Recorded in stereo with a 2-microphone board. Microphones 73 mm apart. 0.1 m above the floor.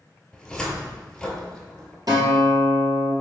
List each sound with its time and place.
0.3 s a cupboard door: 10° left (ahead or behind), 0.7 m
2.1 s a guitar: 55° right (ahead or behind), 1.9 m